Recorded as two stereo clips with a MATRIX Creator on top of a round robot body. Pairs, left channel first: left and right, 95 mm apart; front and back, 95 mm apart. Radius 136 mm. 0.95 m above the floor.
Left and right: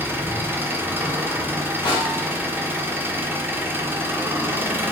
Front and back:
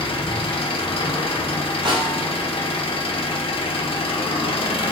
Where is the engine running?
20° right, 1.1 m.